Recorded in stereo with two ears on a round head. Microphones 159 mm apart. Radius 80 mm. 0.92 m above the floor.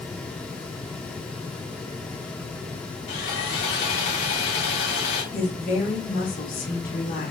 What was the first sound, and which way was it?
Sawing, 70° left (ahead or behind).